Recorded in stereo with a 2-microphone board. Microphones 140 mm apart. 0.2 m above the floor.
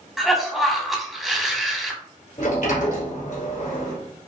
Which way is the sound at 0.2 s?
Centre (ahead or behind).